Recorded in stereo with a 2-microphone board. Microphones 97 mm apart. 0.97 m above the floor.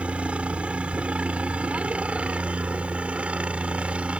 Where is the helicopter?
10° right (ahead or behind).